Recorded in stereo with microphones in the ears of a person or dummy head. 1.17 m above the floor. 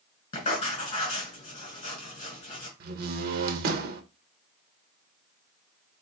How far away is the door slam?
About 0.6 m.